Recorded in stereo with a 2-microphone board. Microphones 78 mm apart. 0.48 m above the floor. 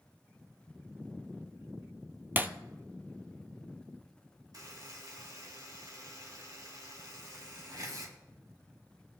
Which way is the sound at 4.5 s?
55° right (ahead or behind).